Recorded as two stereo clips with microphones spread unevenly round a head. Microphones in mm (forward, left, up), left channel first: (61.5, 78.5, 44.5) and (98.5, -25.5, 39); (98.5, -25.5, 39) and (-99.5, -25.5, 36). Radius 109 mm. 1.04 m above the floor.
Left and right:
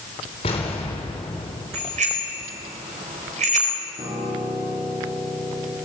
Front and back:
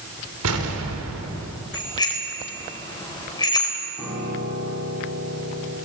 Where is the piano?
95° right, 8 m.